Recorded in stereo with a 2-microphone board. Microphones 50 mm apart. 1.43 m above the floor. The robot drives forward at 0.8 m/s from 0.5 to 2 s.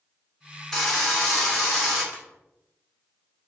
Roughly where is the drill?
Centre.